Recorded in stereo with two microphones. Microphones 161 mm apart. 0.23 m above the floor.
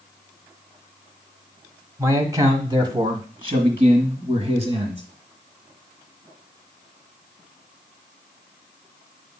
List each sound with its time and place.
2.0 s a man speaking: 20° right (ahead or behind), 1.3 m; by 5.0 s 40° right (ahead or behind), 2.5 m